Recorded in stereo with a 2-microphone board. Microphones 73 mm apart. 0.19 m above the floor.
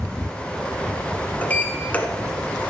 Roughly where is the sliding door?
Left.